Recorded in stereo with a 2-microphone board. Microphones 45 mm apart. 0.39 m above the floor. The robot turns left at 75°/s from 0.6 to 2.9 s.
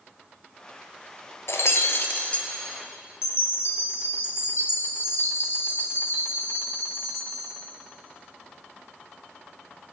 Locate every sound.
1.5 s breaking glass: 100° left, 1.4 m; by 2.5 s 25° left, 1.4 m
3.2 s a chime: 65° left (ahead or behind), 1.9 m